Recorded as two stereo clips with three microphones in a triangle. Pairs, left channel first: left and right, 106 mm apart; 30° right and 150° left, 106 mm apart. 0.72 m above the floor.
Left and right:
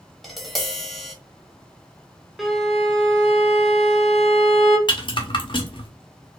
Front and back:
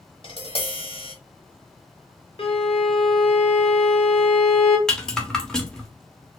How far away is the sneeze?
No sneeze in this recording.